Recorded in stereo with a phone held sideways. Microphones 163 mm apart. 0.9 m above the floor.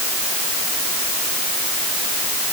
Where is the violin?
No violin in this recording.